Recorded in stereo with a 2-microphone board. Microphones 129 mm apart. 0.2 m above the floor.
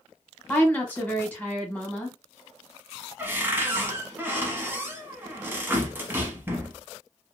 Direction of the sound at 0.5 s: 15° left (ahead or behind).